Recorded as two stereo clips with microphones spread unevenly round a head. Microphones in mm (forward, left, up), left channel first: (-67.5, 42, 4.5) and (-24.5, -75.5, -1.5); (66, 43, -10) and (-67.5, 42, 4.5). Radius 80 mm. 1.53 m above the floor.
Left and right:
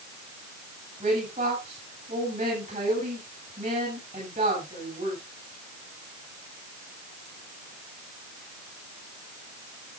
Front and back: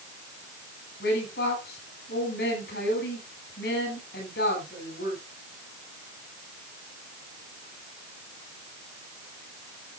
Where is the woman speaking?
20° right, 8.5 m.